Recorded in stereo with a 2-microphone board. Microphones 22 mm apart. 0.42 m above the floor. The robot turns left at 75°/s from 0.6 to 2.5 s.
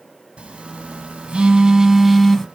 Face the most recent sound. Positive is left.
turn(degrees=155)